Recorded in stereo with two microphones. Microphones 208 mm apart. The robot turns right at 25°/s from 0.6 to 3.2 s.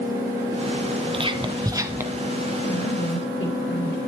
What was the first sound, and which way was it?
Whispering, 25° right (ahead or behind).